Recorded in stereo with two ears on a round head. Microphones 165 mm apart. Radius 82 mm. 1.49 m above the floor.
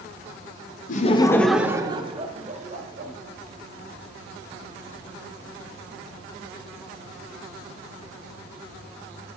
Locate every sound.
0.9 s laughter: 45° left (ahead or behind), 0.6 m; by 3.1 s 45° right (ahead or behind), 1.5 m